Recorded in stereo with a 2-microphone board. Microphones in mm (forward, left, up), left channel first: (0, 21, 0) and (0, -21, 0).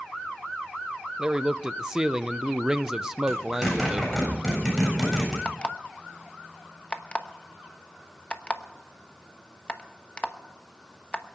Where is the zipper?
5° left (ahead or behind), 7.5 m.